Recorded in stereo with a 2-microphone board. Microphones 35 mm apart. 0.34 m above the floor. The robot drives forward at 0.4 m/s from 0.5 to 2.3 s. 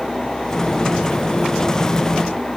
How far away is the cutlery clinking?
No cutlery clinking in this recording.